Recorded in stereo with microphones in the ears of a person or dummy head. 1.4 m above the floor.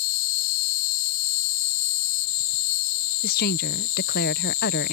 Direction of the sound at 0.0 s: 45° left (ahead or behind).